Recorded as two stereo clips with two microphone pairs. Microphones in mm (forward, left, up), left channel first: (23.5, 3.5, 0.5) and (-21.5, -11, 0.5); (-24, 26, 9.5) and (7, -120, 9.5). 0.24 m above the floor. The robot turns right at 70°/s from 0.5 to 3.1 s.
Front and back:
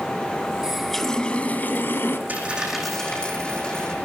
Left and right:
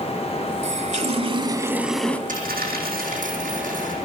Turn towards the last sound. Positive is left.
turn(degrees=-50)